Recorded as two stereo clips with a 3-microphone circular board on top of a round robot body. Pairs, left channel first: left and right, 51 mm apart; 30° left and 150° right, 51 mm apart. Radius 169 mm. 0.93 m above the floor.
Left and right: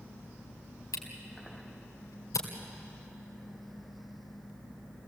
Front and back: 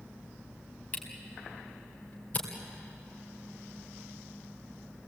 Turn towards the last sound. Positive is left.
turn(degrees=90)